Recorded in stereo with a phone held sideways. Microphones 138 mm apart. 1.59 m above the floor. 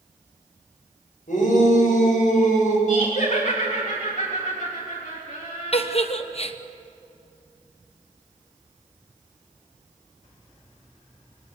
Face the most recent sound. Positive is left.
turn(degrees=45)  # may be behind; listen again after turning